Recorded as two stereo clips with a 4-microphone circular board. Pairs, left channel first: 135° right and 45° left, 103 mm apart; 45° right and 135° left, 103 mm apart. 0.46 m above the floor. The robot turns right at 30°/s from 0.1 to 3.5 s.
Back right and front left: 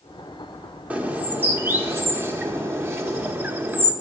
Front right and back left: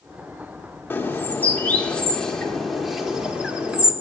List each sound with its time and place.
0.9 s a bird: 10° right, 0.9 m; by 3.9 s 70° left, 0.9 m